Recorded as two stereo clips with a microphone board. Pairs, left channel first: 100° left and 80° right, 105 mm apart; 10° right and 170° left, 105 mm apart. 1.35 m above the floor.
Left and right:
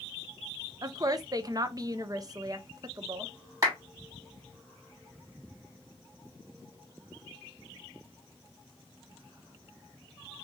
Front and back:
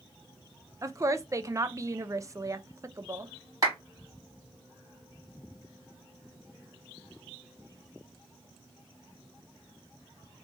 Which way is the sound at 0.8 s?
130° right.